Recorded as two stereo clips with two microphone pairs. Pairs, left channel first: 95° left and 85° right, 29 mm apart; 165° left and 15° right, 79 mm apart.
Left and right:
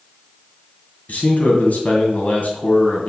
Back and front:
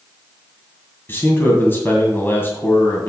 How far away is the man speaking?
About 2.5 m.